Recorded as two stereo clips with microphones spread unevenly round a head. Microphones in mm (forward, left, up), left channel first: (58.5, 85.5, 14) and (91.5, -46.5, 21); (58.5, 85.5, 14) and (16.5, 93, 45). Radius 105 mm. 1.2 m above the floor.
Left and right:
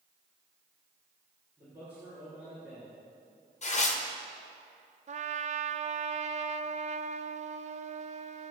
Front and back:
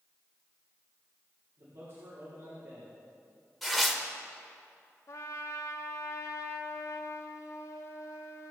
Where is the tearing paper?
70° left, 1.5 m.